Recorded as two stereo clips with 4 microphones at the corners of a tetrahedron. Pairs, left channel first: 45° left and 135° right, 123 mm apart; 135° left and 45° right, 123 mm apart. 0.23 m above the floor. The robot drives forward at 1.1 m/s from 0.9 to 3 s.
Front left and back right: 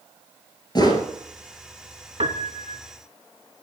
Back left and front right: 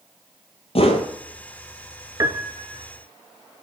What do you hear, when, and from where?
0.8 s a whoosh: 100° left, 1.0 m; by 1.1 s 110° left, 1.1 m
2.2 s a piano: 105° right, 0.6 m; by 2.8 s 150° right, 1.0 m